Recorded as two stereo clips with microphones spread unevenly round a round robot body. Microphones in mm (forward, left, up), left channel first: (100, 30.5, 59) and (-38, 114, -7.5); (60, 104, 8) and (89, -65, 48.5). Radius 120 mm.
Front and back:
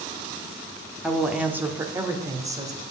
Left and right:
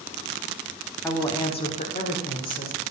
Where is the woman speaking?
130° left, 0.8 m; by 2.8 s 90° left, 1.9 m.